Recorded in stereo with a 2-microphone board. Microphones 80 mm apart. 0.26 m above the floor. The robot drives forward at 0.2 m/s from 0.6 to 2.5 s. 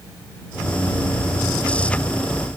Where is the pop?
I don't hear a pop.